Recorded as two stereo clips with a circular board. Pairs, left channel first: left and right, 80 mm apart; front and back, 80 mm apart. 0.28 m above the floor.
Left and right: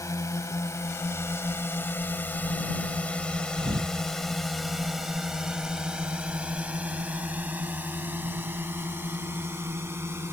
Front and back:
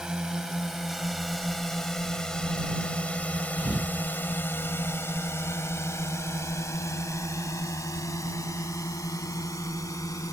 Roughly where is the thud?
Right.